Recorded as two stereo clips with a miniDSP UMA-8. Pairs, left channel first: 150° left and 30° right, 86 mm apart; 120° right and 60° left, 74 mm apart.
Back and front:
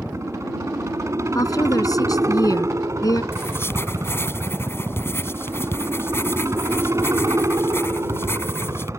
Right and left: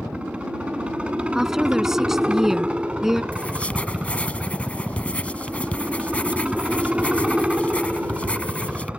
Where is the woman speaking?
140° left.